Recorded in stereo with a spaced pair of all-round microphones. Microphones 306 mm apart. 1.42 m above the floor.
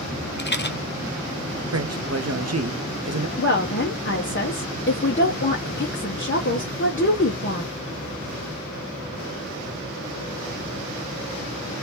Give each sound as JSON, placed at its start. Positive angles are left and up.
{"t": 0.4, "sound": "a rattle", "side_deg": 35, "distance_m": 0.7}
{"t": 1.7, "sound": "a man speaking", "side_deg": -55, "distance_m": 0.7}
{"t": 3.4, "sound": "a woman speaking", "side_deg": 40, "distance_m": 0.8}